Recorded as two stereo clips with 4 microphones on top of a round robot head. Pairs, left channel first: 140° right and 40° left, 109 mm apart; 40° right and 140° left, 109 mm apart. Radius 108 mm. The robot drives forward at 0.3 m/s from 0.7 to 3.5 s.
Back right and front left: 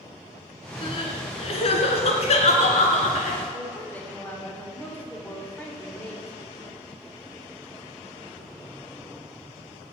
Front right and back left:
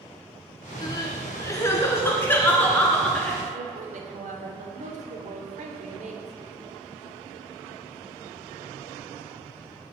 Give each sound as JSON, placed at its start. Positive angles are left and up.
{"t": 0.8, "sound": "crying", "azimuth_deg": -100, "distance_m": 1.8}
{"t": 3.5, "sound": "a woman speaking", "azimuth_deg": 140, "distance_m": 3.0}